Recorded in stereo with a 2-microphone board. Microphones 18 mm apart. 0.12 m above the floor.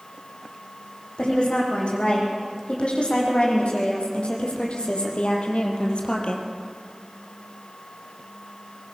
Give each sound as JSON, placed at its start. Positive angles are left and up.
{"t": 1.2, "sound": "a woman speaking", "side_deg": 65, "distance_m": 6.5}